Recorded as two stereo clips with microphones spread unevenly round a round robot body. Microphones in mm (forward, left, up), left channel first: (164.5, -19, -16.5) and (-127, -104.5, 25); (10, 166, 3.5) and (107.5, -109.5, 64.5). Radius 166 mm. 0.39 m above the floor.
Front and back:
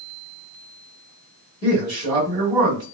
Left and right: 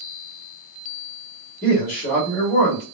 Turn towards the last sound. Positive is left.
turn(degrees=110)